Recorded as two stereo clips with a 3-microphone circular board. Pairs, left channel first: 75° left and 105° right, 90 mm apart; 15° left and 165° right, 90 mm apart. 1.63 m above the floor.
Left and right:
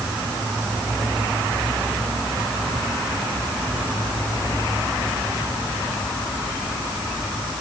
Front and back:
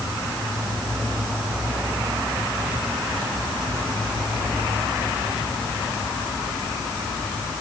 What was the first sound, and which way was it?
Only background noise.